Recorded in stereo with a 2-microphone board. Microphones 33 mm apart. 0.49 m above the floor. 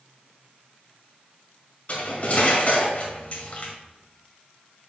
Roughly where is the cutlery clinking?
Left.